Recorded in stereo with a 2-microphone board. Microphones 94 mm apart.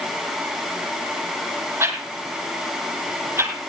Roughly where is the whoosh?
Right.